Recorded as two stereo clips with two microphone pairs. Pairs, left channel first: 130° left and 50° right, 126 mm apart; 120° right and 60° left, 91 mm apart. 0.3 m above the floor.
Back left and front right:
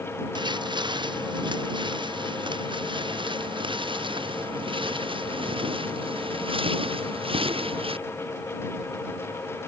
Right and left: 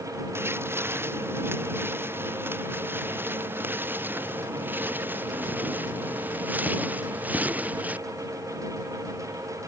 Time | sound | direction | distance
0.3 | footsteps | straight ahead | ?